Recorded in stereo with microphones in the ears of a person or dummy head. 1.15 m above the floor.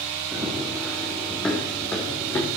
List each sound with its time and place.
0.3 s running footsteps: centre (ahead or behind), 2.5 m; by 2.5 s 20° left (ahead or behind), 3.5 m